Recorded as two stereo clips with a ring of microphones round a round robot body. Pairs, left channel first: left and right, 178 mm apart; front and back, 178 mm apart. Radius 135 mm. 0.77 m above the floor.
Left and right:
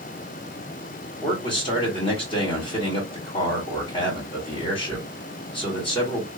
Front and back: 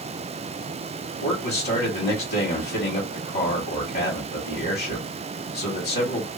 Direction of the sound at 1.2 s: 30° left.